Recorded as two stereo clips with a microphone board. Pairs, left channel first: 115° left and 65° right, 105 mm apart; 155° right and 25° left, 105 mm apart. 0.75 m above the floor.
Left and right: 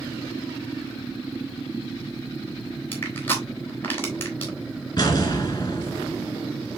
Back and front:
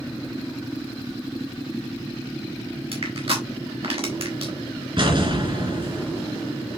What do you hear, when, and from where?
2.9 s crushing: 45° left, 3.5 m
5.0 s an explosion: 60° left, 3 m